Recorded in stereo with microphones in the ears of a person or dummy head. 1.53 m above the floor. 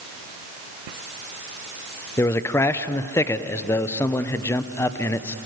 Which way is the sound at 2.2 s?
15° left (ahead or behind).